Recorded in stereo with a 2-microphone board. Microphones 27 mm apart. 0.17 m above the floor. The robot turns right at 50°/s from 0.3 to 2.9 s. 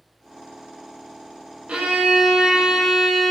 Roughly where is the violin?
Ahead right.